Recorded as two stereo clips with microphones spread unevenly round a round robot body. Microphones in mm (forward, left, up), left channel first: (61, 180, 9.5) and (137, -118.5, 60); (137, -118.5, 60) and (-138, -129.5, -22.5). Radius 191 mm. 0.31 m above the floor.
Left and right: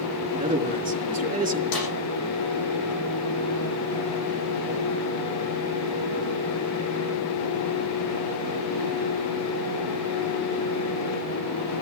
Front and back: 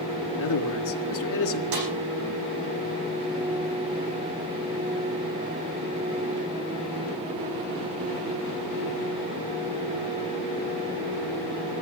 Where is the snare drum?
140° left, 8 m.